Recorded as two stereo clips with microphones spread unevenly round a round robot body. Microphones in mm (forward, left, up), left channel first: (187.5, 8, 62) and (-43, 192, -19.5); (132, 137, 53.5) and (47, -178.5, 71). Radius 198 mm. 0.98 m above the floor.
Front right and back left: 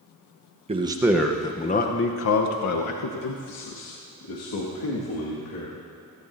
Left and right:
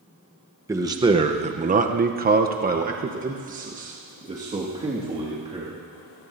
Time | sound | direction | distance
0.7 | a man speaking | 175° left | 0.9 m